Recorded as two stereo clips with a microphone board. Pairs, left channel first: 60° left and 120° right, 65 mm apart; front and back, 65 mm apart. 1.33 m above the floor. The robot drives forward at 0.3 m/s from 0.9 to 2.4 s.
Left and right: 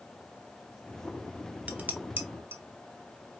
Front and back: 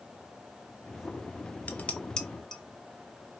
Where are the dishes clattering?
60° right, 0.8 m; by 2.6 s 80° right, 0.7 m.